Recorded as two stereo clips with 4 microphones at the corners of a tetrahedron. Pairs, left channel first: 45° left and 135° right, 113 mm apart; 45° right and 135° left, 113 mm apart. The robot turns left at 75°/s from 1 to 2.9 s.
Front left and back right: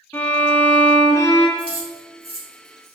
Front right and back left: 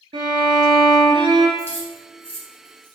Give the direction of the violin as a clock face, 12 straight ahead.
8 o'clock.